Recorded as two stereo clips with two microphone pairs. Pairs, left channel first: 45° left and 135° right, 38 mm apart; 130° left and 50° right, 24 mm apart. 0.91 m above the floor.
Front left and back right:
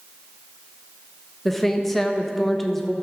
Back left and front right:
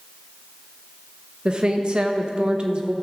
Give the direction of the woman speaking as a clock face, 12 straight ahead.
1 o'clock.